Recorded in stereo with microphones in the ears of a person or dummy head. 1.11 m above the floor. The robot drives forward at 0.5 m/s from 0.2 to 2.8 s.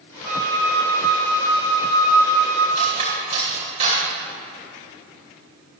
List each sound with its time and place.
0.2 s a flute: 15° right (ahead or behind), 1.4 m; by 2.6 s 10° right (ahead or behind), 2.5 m
2.8 s cutlery clinking: 35° right (ahead or behind), 2.5 m